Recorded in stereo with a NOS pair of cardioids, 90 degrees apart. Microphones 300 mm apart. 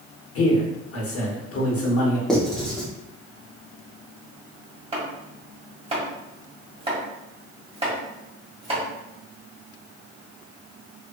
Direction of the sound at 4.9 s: 20° right.